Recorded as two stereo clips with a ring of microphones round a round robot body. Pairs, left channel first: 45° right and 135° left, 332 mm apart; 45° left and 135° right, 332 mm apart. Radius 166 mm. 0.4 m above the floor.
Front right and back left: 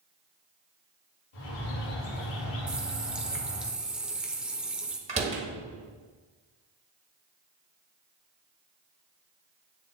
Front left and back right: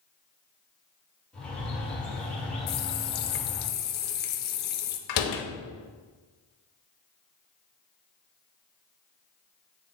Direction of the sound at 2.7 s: 50° left.